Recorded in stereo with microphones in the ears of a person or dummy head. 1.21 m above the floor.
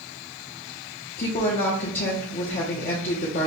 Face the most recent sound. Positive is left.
turn(degrees=40)  # may be behind; listen again after turning